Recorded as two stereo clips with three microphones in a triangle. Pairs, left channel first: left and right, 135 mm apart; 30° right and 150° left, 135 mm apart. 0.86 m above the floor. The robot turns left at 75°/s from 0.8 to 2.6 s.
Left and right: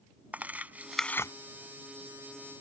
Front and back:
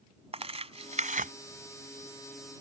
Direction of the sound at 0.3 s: 170° right.